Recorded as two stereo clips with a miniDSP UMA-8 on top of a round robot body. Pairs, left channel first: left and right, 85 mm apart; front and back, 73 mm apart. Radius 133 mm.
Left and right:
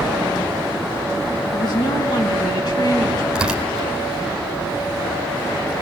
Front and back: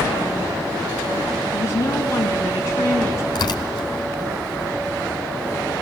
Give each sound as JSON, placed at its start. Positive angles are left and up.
{"t": 1.5, "sound": "a woman speaking", "azimuth_deg": 55, "distance_m": 4.0}
{"t": 3.4, "sound": "tearing paper", "azimuth_deg": -10, "distance_m": 2.0}